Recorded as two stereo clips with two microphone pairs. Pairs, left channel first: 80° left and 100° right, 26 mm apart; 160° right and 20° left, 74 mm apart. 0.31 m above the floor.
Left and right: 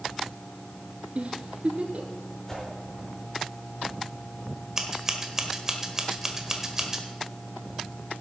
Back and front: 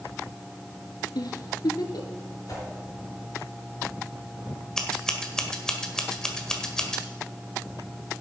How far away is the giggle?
About 1.2 m.